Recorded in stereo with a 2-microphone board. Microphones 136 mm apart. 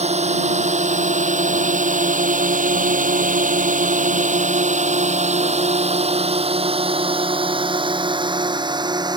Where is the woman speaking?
No woman speaking in this recording.